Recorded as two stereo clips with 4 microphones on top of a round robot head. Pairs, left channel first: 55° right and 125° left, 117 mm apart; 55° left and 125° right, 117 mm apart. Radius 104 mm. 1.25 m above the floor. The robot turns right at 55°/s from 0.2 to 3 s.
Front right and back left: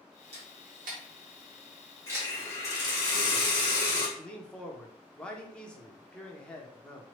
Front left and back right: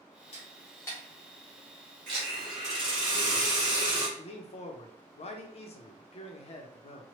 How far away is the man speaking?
About 0.7 m.